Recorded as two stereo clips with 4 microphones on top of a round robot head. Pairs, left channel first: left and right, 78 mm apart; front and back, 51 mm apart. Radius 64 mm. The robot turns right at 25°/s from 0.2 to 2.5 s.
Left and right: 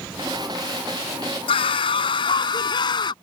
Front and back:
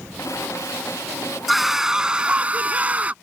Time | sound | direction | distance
1.5 | a scream | 90° left | ?